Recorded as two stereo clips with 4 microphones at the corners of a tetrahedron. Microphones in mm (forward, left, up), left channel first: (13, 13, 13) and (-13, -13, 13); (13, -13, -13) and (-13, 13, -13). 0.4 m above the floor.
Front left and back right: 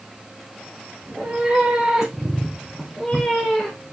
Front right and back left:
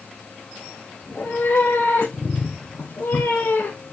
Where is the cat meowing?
80° right, 4 m; by 3.9 s 30° right, 4 m.